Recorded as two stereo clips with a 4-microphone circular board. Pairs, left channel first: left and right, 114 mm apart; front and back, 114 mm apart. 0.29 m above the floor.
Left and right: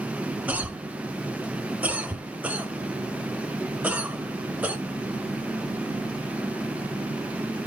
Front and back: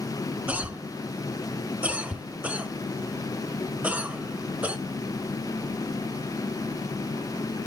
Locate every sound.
0.5 s a cough: 135° right, 1.0 m